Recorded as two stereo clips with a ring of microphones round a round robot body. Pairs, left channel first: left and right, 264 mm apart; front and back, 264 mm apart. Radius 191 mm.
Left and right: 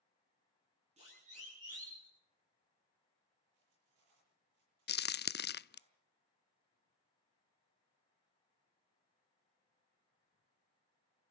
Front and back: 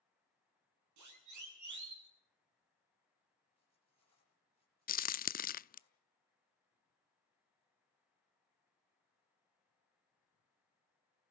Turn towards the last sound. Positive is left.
turn(degrees=50)